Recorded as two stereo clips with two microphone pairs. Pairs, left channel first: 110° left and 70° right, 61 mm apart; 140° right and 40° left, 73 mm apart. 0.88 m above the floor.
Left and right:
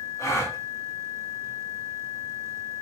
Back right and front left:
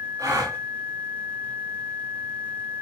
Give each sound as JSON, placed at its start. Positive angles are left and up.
{"t": 0.2, "sound": "a gasp", "azimuth_deg": 75, "distance_m": 1.1}